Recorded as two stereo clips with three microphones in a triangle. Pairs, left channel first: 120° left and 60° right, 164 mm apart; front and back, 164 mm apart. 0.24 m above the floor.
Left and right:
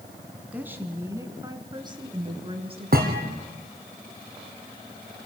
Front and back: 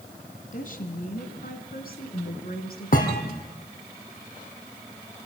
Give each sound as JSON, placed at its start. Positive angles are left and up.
{"t": 0.5, "sound": "a woman speaking", "azimuth_deg": 20, "distance_m": 2.0}
{"t": 2.9, "sound": "a thud", "azimuth_deg": -35, "distance_m": 3.0}